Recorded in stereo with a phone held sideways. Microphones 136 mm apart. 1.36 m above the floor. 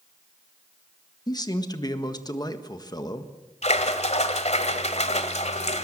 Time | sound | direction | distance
1.3 | a man speaking | 30° left (ahead or behind) | 1.6 m
3.6 | a splash | 55° left (ahead or behind) | 1.7 m